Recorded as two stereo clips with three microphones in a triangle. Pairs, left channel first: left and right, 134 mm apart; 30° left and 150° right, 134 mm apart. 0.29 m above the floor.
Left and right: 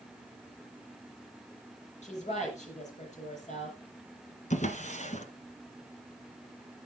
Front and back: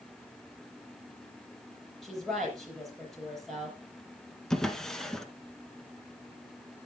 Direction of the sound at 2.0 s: 120° left.